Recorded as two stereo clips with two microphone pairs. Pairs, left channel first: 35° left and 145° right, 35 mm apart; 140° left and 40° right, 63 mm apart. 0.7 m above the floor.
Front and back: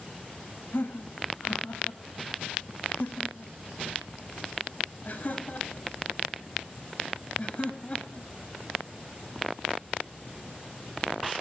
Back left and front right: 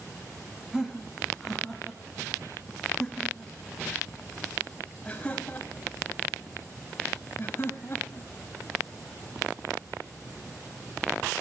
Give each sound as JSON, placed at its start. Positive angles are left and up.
{"t": 0.7, "sound": "laughter", "azimuth_deg": 40, "distance_m": 5.5}